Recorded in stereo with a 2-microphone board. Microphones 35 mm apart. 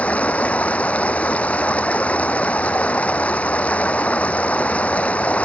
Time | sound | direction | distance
0.0 | running water | 40° left (ahead or behind) | ?